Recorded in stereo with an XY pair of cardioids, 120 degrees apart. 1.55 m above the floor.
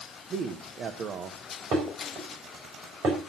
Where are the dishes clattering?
50° right, 4 m.